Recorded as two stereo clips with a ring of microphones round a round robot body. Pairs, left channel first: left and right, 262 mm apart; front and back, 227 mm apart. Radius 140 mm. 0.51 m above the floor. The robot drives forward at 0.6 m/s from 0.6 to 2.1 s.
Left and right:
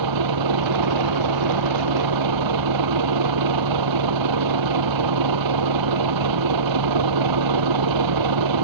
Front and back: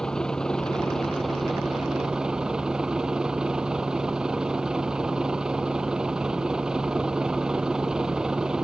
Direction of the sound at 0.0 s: 90° right.